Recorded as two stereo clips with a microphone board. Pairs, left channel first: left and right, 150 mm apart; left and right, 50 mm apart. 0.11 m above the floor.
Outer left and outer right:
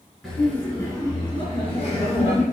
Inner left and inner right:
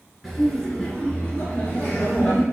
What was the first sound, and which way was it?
Laughter, 5° left (ahead or behind).